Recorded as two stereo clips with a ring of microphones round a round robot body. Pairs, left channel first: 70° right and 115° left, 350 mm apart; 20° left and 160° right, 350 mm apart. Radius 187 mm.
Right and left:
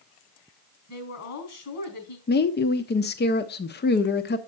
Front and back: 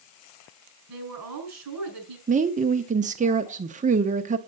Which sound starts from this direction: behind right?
A woman speaking, at 0.9 s.